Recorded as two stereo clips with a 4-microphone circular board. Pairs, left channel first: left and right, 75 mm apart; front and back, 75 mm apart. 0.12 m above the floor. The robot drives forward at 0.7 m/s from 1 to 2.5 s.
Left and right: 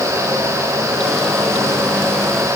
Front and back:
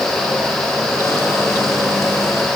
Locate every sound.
Only background noise.